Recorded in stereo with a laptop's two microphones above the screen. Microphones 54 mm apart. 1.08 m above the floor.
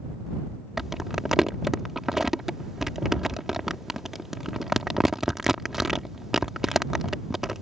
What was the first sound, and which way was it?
Crumpling, 5° right (ahead or behind).